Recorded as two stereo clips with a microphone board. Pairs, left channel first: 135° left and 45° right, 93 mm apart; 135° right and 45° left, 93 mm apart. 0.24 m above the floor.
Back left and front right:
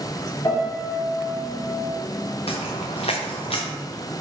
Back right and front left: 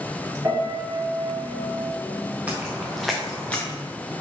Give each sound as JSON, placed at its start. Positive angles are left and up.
{"t": 0.4, "sound": "a piano", "azimuth_deg": 105, "distance_m": 3.5}
{"t": 2.5, "sound": "footsteps", "azimuth_deg": 120, "distance_m": 2.0}